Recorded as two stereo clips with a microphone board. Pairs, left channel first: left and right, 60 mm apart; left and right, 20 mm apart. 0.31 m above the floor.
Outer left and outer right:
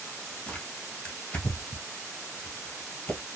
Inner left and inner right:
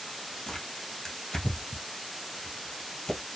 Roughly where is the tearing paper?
Left.